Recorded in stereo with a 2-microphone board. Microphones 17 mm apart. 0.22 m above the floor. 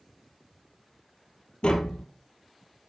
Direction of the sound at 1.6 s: 65° left (ahead or behind).